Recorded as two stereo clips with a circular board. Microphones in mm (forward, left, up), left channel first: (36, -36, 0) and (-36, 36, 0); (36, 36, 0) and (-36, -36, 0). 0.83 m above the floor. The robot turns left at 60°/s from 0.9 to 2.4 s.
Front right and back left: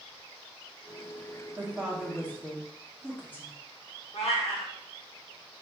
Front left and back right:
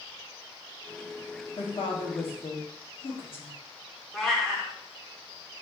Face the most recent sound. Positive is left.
turn(degrees=-40)